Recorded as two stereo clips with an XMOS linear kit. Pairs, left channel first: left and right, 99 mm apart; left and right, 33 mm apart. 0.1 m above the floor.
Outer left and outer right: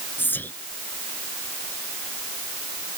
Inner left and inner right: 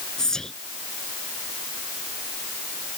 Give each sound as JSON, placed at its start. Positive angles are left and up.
{"t": 0.2, "sound": "whispering", "side_deg": 20}